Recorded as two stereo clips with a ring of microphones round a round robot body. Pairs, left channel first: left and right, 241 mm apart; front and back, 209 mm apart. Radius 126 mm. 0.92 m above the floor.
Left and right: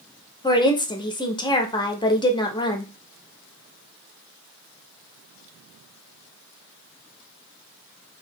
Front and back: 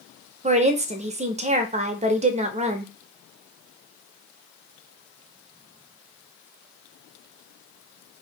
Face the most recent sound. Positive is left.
turn(degrees=150)